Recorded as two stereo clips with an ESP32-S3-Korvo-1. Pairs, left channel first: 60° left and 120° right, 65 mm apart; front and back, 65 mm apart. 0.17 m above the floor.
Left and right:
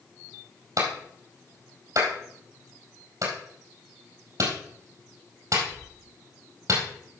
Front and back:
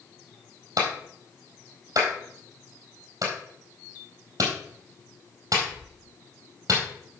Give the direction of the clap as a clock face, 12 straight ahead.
5 o'clock.